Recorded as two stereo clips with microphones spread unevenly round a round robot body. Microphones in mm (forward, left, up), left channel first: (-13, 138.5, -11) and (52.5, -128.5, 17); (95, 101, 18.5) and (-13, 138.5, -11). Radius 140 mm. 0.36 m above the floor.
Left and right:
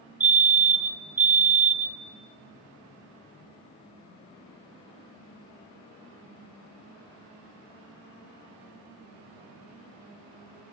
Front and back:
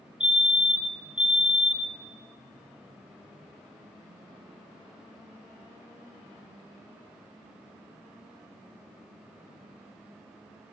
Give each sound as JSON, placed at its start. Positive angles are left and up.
{"t": 0.2, "sound": "a fire alarm", "azimuth_deg": -165, "distance_m": 2.5}